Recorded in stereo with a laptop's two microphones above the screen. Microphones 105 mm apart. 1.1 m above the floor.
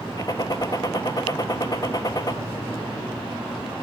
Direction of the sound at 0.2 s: 40° left (ahead or behind).